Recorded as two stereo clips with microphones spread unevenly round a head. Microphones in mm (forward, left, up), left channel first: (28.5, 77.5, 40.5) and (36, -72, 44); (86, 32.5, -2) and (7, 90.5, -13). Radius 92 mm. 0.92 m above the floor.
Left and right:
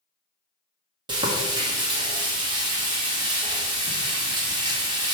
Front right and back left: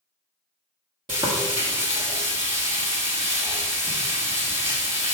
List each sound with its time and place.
1.1 s frying: 150° right, 1.4 m